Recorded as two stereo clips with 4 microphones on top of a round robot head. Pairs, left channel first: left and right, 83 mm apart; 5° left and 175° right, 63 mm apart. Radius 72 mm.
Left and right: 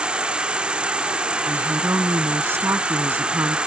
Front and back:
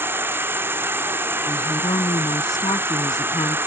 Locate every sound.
0.0 s an insect: 160° right
1.4 s a woman speaking: 30° right